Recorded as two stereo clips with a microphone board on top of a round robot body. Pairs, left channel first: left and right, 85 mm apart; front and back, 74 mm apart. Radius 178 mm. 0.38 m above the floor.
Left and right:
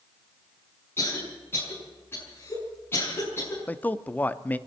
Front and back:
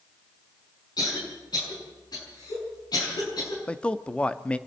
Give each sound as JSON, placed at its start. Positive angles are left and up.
{"t": 1.0, "sound": "a cough", "azimuth_deg": 25, "distance_m": 7.0}
{"t": 3.7, "sound": "a man speaking", "azimuth_deg": 55, "distance_m": 1.0}